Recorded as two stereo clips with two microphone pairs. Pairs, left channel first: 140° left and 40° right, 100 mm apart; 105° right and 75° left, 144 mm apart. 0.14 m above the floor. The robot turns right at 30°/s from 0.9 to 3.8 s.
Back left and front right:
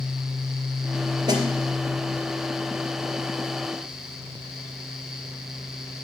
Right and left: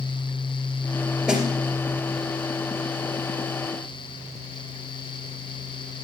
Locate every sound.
1.3 s a snare drum: 5° right, 2.5 m; by 1.4 s straight ahead, 2.5 m